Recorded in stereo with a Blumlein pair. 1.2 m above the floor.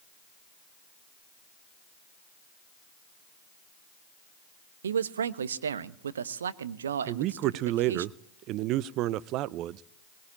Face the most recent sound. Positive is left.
turn(degrees=-40)